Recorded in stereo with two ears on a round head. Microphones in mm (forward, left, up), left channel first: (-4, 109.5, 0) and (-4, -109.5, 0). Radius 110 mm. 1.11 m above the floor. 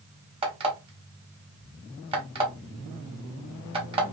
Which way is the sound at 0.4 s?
20° right (ahead or behind).